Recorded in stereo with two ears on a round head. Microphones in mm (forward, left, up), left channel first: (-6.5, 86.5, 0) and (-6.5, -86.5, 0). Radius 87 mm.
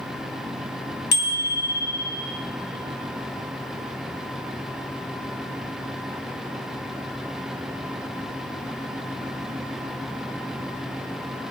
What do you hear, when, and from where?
1.1 s a bicycle bell: 55° left (ahead or behind), 2 m